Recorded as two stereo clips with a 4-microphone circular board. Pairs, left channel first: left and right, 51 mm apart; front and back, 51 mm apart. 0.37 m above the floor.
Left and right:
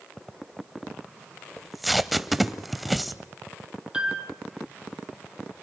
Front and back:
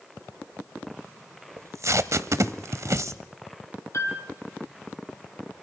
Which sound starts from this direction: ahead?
A piano, at 3.9 s.